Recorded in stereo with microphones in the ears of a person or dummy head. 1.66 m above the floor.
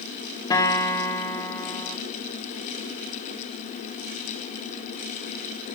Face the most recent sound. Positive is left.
turn(degrees=20)  # may be behind; listen again after turning